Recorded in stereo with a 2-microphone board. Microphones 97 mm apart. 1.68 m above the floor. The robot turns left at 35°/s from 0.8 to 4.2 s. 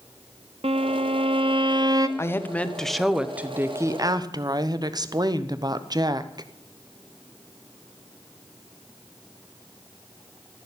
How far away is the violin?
About 0.8 m.